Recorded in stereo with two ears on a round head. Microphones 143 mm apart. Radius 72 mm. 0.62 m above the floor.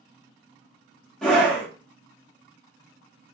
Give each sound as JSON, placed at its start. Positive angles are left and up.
{"t": 1.2, "sound": "a scream", "side_deg": 5, "distance_m": 1.2}